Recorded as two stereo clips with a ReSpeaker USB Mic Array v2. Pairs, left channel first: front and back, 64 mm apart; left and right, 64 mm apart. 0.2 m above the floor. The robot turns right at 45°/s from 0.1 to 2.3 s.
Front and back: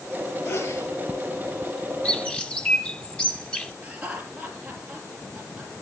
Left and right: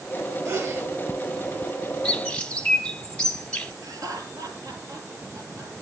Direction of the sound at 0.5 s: 60° right.